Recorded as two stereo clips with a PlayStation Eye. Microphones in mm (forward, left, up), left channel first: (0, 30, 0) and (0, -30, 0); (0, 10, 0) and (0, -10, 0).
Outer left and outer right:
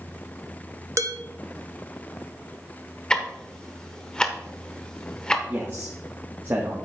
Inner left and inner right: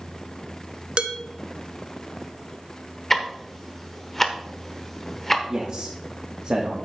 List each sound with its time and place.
1.0 s dishes clattering: 55° right (ahead or behind), 0.7 m
3.1 s ticking: 15° left (ahead or behind), 0.9 m
5.5 s a man speaking: 40° right (ahead or behind), 1.2 m